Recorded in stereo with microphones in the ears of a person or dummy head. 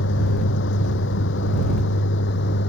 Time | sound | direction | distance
0.0 | a vehicle | 65° left (ahead or behind) | ?